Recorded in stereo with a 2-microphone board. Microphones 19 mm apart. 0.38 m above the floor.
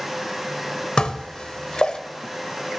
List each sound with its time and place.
1.0 s dishes clattering: 50° left (ahead or behind), 0.9 m